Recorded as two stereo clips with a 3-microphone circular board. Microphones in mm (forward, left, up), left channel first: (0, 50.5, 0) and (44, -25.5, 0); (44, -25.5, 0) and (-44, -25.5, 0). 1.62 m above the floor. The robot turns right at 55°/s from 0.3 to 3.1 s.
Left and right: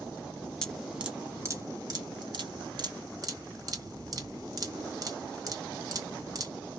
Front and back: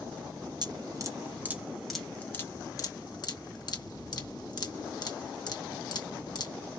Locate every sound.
0.6 s dripping: 160° right, 2.0 m; by 6.5 s 25° right, 2.0 m